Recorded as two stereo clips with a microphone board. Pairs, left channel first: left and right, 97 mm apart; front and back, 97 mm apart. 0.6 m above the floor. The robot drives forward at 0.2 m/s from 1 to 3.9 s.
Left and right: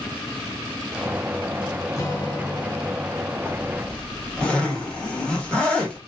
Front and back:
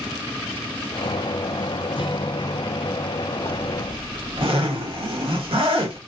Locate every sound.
2.0 s a guitar: 30° left, 1.1 m; by 3.1 s 35° left, 0.9 m
3.5 s a zipper: 170° left, 1.2 m